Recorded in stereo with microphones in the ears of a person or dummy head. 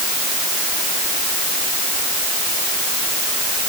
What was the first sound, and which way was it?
Only background noise.